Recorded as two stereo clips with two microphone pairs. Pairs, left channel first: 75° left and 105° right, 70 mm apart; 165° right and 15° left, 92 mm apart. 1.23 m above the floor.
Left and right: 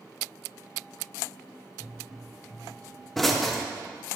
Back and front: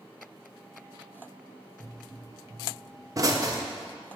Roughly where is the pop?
Ahead.